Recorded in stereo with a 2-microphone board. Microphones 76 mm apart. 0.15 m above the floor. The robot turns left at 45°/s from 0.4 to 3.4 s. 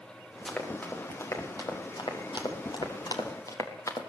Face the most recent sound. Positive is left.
turn(degrees=45)  # may be behind; listen again after turning